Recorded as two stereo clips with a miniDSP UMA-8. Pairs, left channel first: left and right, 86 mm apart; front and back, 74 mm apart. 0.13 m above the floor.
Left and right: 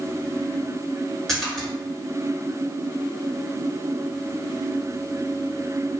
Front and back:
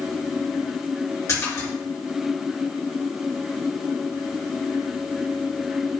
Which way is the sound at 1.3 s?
5° left.